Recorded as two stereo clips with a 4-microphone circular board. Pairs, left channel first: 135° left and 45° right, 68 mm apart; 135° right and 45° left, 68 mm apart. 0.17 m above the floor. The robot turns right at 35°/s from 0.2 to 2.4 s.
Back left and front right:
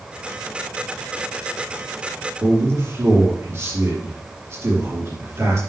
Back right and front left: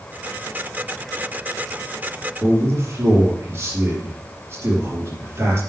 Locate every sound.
2.4 s a man speaking: 5° right, 4.5 m